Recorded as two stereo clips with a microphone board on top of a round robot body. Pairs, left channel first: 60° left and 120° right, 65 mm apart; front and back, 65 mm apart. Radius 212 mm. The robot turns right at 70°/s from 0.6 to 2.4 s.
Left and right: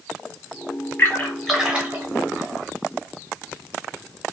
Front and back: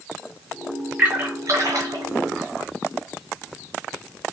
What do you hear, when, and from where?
1.0 s a splash: 115° left, 1.7 m; by 2.0 s 175° right, 1.7 m